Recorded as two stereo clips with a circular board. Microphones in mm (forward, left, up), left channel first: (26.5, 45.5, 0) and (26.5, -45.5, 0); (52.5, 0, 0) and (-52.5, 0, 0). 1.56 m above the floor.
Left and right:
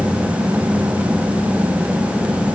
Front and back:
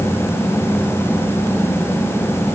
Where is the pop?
No pop in this recording.